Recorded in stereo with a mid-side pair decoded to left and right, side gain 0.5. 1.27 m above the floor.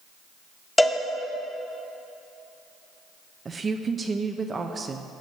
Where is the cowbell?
10° left, 1.6 m.